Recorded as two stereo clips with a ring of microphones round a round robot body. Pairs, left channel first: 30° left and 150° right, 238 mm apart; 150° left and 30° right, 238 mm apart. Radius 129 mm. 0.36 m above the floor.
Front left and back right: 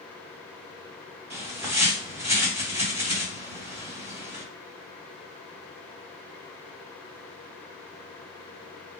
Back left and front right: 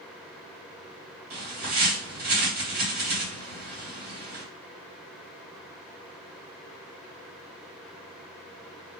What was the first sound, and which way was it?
A bird, 70° right.